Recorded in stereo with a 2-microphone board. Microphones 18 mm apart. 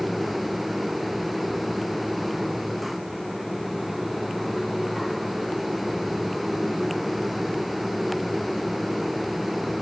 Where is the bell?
I don't hear a bell.